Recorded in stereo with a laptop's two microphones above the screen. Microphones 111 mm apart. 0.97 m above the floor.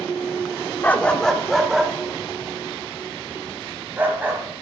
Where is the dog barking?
15° left (ahead or behind), 0.7 m; by 4.4 s 20° right (ahead or behind), 2.5 m.